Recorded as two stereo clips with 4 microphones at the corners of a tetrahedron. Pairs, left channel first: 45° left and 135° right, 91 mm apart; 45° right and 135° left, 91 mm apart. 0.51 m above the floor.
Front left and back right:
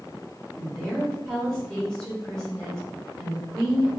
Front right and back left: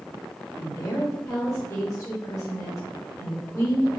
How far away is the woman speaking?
About 1.3 m.